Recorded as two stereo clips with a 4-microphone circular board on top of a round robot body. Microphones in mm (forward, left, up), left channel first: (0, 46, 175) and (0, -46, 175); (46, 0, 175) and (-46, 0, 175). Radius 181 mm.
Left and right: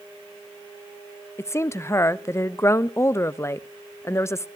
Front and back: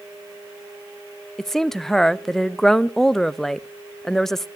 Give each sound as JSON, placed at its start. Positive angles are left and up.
{"t": 1.4, "sound": "a woman speaking", "azimuth_deg": 80, "distance_m": 0.7}